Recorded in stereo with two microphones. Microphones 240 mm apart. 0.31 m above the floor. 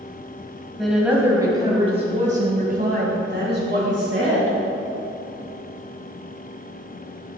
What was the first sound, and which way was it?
A woman speaking, centre (ahead or behind).